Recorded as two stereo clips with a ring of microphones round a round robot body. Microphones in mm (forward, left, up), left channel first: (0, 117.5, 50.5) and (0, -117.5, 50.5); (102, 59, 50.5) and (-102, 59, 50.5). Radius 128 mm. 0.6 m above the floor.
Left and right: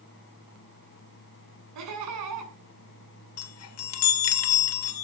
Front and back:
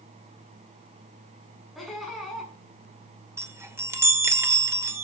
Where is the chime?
105° left, 2 m.